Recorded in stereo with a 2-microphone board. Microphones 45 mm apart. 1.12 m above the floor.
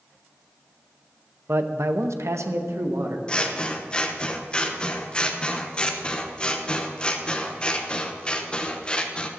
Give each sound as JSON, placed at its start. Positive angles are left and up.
{"t": 1.5, "sound": "a man speaking", "side_deg": -50, "distance_m": 0.8}
{"t": 3.3, "sound": "scissors", "side_deg": 20, "distance_m": 1.0}